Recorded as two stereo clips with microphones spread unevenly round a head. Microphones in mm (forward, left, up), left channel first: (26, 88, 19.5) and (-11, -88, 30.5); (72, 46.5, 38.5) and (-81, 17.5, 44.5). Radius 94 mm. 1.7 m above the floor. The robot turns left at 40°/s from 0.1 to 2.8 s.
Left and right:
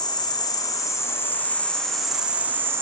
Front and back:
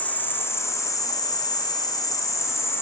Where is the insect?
70° left, 0.8 m; by 2.8 s 35° right, 0.8 m.